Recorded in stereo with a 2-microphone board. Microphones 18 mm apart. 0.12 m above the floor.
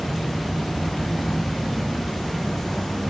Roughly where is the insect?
Left.